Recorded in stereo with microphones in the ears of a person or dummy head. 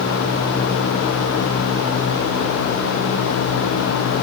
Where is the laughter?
I don't hear laughter.